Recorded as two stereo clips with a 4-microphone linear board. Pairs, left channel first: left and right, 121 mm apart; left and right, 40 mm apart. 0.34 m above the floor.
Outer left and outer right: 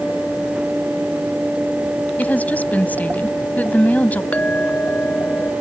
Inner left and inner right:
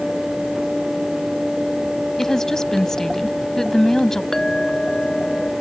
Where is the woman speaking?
15° left (ahead or behind).